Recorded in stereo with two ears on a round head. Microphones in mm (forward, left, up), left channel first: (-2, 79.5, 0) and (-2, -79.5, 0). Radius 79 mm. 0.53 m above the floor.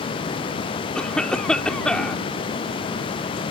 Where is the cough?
5° left (ahead or behind).